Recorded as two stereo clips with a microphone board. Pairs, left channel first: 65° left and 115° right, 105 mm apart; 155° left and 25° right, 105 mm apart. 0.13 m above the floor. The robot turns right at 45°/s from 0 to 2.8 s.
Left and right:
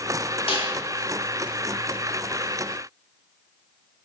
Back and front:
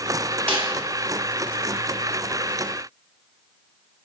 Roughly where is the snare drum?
Left.